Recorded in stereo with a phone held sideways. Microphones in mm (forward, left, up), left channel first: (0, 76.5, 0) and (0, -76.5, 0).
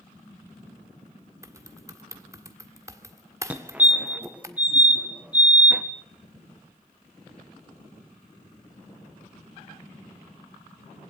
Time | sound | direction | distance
1.4 | typing on a keyboard | 20° right (ahead or behind) | 1.8 m
3.5 | a fire alarm | 10° right (ahead or behind) | 1.6 m